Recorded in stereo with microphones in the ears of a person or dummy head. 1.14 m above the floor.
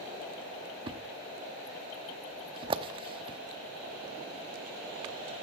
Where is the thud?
30° right (ahead or behind), 0.9 m.